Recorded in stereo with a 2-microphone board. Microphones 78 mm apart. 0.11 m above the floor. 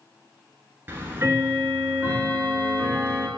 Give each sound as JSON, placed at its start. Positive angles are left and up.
{"t": 0.9, "sound": "ticking", "side_deg": -30, "distance_m": 0.9}